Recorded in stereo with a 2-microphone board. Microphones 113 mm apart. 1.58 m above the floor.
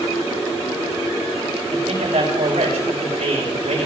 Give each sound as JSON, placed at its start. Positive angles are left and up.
{"t": 1.7, "sound": "a man speaking", "side_deg": -75, "distance_m": 6.0}